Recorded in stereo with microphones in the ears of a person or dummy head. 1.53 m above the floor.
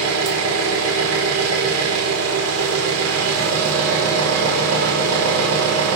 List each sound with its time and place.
0.0 s an engine running: 85° right, 4.5 m